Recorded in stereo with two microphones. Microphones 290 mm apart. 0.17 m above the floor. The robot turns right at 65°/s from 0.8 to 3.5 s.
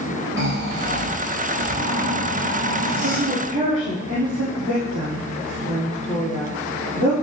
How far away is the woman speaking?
About 6 m.